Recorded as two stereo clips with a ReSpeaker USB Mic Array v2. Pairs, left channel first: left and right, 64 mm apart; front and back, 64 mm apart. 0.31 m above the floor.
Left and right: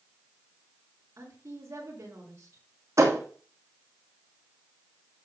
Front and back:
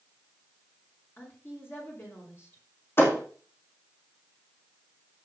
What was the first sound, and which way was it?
A woman speaking, 50° right.